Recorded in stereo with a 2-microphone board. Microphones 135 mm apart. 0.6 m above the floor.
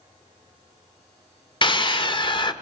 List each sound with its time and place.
1.6 s a scream: 35° left (ahead or behind), 1.4 m